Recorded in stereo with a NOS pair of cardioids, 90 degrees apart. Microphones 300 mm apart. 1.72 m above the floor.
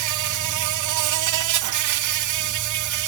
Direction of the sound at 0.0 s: 70° right.